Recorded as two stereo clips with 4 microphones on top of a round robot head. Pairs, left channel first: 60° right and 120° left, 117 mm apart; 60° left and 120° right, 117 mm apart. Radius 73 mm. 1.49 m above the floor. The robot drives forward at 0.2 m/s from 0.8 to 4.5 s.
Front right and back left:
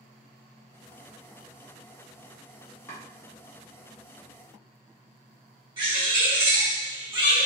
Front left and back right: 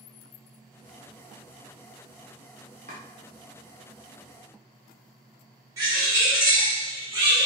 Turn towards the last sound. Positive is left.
turn(degrees=175)